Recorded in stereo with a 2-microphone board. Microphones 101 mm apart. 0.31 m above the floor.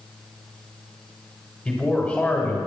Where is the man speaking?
20° left (ahead or behind), 1.5 m.